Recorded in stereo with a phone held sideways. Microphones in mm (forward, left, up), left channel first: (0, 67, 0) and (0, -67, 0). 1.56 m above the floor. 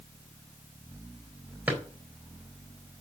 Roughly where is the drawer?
Centre.